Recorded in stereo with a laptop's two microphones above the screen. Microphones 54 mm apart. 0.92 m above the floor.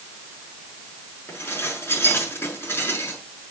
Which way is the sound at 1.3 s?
45° left (ahead or behind).